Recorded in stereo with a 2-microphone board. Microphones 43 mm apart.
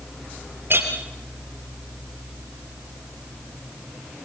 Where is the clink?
55° right (ahead or behind), 3.5 m.